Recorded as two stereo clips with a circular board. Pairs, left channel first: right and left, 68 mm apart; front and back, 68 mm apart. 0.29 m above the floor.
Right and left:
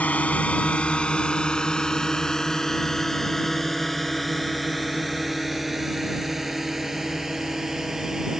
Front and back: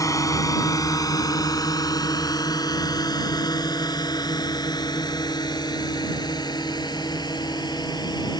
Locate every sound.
0.0 s a drone: 25° right; by 8.4 s 5° left